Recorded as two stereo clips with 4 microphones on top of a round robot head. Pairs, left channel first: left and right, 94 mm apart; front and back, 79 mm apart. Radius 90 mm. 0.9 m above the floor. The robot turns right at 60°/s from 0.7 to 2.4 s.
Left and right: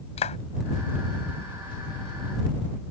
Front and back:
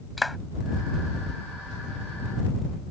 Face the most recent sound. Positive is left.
turn(degrees=-165)